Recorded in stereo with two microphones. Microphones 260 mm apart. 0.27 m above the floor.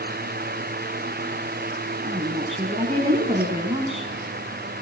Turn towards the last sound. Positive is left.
turn(degrees=-25)  # may be behind; listen again after turning